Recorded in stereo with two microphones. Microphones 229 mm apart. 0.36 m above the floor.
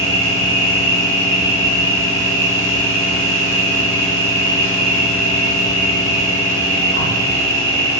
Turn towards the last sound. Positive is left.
turn(degrees=-70)  # may be behind; listen again after turning